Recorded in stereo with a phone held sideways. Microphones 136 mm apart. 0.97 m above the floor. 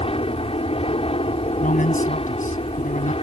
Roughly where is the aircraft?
Left.